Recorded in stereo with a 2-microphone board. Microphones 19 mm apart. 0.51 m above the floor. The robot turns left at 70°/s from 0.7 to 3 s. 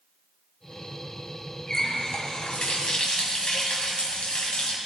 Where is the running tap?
155° left, 2.0 m; by 4.8 s 65° left, 2.0 m.